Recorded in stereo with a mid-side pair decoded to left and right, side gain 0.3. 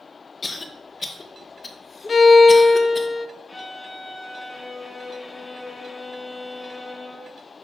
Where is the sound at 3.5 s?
35° left, 1.4 m.